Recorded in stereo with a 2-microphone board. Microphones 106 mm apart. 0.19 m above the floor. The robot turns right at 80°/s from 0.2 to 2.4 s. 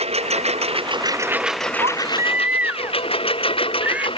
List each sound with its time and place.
0.0 s a lawn mower: 75° right (ahead or behind); by 4.2 s 55° left (ahead or behind)
1.8 s a baby crying: 60° right; by 4.1 s 15° right